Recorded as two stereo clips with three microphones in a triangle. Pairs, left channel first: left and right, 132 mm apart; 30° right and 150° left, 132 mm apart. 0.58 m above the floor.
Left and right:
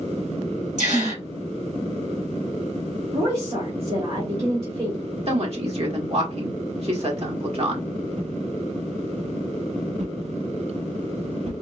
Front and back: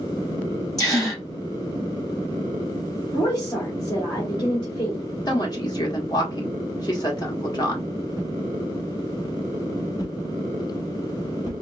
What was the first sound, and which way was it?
A gasp, 95° right.